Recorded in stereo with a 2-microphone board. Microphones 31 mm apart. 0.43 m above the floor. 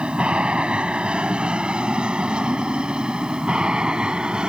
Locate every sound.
0.0 s an aircraft: 35° right (ahead or behind); by 4.5 s 25° right (ahead or behind)